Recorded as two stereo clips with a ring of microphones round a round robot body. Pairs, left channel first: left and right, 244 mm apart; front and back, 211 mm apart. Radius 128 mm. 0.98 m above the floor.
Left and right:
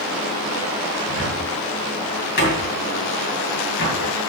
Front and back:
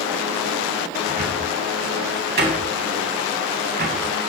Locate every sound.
1.1 s a cupboard door: 140° left, 3 m